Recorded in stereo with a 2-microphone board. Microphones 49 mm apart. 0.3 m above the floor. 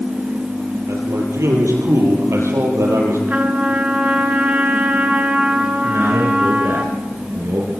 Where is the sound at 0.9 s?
75° right (ahead or behind), 8.5 m; by 3.2 s 80° right, 10 m.